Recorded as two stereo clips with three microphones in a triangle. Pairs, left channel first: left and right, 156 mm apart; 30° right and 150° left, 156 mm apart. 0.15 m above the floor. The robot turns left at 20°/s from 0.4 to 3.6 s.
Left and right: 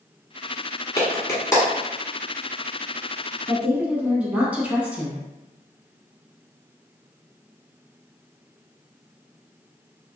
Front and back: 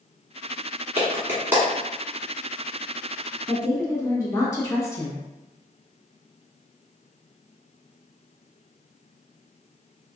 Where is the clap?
110° left, 1.2 m; by 1.6 s 95° left, 1.2 m.